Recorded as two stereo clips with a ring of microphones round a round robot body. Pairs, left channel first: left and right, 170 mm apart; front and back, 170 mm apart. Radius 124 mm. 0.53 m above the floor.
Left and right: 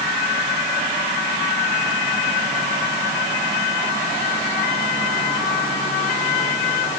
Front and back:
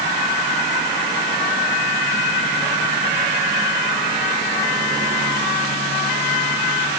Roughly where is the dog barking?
No dog barking in this recording.